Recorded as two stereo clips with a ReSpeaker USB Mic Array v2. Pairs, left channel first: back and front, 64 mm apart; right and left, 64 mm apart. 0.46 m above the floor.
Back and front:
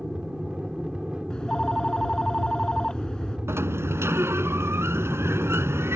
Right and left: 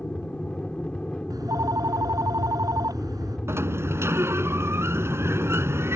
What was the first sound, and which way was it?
An aircraft, 55° right.